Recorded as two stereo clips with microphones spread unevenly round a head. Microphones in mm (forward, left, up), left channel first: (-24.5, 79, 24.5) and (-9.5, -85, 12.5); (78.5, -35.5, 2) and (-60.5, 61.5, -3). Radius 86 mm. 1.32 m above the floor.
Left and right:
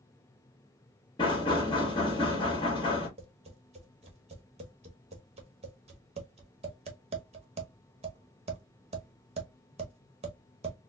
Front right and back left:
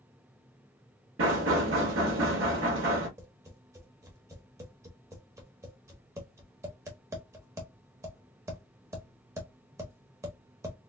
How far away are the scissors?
I don't hear scissors.